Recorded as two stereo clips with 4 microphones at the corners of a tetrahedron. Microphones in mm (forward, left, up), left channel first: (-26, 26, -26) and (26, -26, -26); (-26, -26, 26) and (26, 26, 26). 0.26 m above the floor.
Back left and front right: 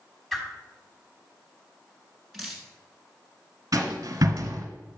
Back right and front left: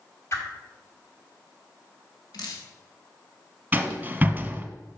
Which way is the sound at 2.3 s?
135° right.